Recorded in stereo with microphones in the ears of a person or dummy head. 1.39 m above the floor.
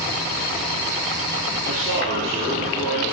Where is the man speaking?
60° right (ahead or behind), 2.5 m.